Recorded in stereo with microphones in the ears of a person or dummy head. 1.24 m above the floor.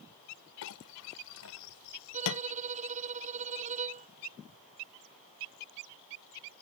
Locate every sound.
0.6 s a clink: 80° left
2.1 s a violin: 35° right (ahead or behind)